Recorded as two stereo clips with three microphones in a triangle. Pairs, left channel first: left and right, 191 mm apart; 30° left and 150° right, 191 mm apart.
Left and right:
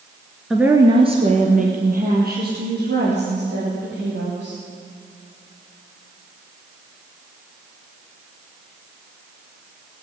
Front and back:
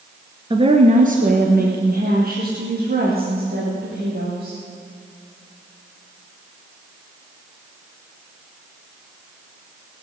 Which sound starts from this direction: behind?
A woman speaking, at 0.5 s.